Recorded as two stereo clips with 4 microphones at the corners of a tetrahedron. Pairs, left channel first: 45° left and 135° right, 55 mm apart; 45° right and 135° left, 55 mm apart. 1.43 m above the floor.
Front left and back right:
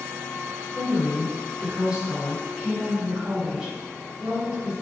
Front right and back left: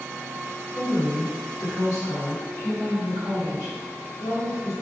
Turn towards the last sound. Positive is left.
turn(degrees=-55)